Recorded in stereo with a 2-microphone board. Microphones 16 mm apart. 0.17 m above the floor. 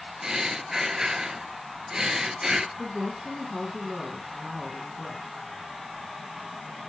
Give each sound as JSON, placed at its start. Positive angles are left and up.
{"t": 0.2, "sound": "breathing", "side_deg": -40, "distance_m": 0.6}
{"t": 2.8, "sound": "a woman speaking", "side_deg": -45, "distance_m": 2.0}